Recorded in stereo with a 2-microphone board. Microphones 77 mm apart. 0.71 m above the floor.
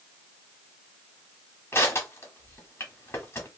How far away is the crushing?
About 1.2 m.